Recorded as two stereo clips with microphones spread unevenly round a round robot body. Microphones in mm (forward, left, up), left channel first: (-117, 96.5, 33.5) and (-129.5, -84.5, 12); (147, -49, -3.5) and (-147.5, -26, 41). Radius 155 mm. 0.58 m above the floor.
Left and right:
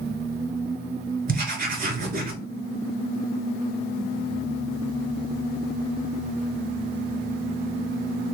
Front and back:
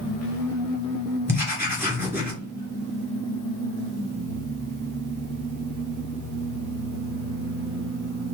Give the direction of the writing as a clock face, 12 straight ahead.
3 o'clock.